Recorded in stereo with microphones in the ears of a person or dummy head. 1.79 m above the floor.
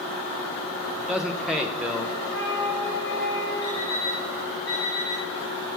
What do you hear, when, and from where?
1.0 s a man speaking: 5° right (ahead or behind), 0.5 m
2.3 s a flute: 10° left (ahead or behind), 2.5 m
3.6 s an alarm clock: 15° left (ahead or behind), 4 m